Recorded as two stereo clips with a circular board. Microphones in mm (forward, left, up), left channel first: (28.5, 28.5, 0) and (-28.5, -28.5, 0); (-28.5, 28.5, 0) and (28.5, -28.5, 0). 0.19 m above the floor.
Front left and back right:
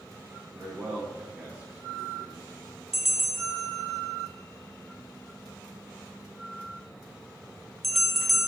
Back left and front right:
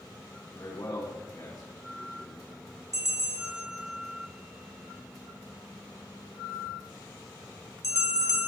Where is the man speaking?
160° left, 4 m; by 2.4 s 165° left, 3 m.